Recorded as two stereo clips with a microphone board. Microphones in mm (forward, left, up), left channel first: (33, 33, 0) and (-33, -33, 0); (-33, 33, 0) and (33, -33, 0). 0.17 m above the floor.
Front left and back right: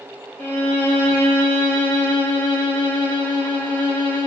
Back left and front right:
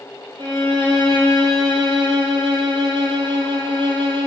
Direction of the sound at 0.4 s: 25° right.